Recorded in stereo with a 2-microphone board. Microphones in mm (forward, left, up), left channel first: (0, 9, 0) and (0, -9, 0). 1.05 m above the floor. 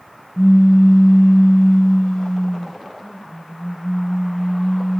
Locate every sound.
0.4 s a pop: 55° left (ahead or behind), 1.0 m